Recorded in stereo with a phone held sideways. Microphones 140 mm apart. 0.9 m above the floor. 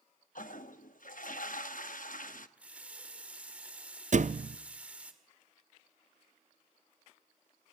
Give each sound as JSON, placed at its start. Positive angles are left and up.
{"t": 0.3, "sound": "a toilet flushing", "side_deg": 75, "distance_m": 0.9}
{"t": 2.6, "sound": "a running tap", "side_deg": -10, "distance_m": 1.7}
{"t": 4.1, "sound": "a thud", "side_deg": -60, "distance_m": 0.5}